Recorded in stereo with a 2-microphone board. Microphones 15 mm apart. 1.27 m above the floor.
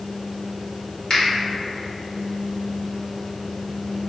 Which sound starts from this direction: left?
A finger snap, at 1.1 s.